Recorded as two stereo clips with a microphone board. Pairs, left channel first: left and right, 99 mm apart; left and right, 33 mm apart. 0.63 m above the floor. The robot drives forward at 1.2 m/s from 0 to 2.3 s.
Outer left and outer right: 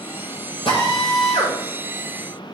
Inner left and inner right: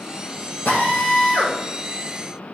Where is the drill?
80° left, 6 m; by 1.6 s 70° left (ahead or behind), 6.5 m.